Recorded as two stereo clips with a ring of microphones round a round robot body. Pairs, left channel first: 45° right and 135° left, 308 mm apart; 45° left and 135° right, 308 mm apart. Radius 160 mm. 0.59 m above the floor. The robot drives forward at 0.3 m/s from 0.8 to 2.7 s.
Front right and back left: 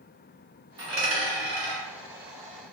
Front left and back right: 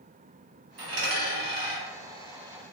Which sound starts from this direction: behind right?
A dropped coin, at 0.8 s.